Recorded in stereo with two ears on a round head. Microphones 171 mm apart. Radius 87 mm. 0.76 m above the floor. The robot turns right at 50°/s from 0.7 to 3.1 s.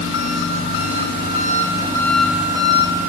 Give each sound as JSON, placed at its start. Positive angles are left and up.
{"t": 0.0, "sound": "an engine running", "azimuth_deg": 100, "distance_m": 0.7}